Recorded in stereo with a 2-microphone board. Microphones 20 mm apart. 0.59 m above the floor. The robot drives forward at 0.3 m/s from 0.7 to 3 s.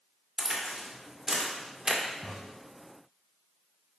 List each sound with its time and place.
0.4 s a crack: 35° right (ahead or behind), 1.8 m; by 2.0 s 40° right (ahead or behind), 1.5 m
2.2 s a crack: 50° left (ahead or behind), 3.5 m